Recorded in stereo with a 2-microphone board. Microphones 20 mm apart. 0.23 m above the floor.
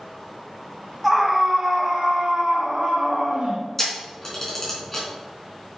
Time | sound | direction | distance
1.0 | a scream | 10° right (ahead or behind) | 1.4 m
3.8 | a camera shutter | 20° left (ahead or behind) | 3 m